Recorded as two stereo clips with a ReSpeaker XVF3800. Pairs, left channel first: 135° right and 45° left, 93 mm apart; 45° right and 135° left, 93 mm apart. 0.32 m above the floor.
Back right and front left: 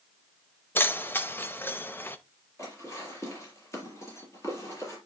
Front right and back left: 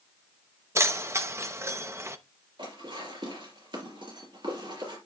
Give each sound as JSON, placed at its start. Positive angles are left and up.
{"t": 0.8, "sound": "keys jangling", "azimuth_deg": 175, "distance_m": 0.6}
{"t": 2.6, "sound": "dishes clattering", "azimuth_deg": 165, "distance_m": 3.5}